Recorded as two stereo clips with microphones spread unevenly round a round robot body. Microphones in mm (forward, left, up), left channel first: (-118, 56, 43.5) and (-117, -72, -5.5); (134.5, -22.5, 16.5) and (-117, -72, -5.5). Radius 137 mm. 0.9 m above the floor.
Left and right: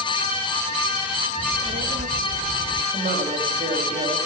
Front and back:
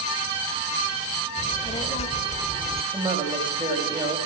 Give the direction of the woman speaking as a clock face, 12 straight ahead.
3 o'clock.